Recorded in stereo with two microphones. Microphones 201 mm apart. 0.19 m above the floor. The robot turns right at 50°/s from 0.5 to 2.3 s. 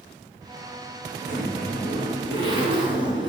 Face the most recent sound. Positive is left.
turn(degrees=-30)